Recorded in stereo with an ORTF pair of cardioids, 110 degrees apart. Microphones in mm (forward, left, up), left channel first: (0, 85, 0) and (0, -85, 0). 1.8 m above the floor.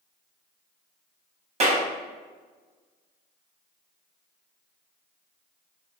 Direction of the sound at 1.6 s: 40° right.